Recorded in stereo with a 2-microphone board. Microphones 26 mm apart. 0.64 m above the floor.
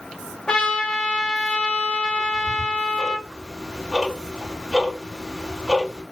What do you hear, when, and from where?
0.5 s a trumpet: 35° left (ahead or behind), 2 m
2.2 s ticking: 25° right (ahead or behind), 1.8 m